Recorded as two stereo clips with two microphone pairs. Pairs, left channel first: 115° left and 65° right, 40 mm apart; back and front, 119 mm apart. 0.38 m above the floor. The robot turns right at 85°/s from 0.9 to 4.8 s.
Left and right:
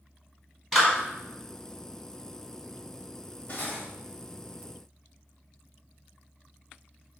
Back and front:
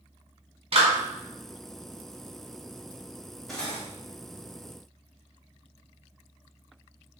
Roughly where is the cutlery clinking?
Left.